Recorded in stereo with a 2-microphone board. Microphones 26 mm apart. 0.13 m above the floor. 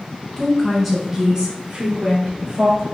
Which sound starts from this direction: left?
A woman speaking, at 0.4 s.